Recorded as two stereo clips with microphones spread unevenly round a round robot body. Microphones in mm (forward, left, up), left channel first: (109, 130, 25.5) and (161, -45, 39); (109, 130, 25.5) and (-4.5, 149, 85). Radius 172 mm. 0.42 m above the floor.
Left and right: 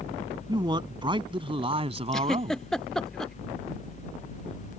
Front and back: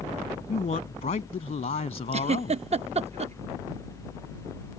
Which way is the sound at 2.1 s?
Straight behind.